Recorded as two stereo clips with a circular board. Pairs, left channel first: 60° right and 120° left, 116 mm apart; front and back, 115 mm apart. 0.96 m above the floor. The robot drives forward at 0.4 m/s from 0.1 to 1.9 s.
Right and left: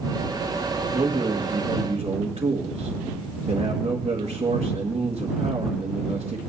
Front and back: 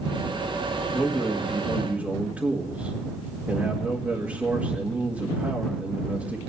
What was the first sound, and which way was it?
A man speaking, 90° left.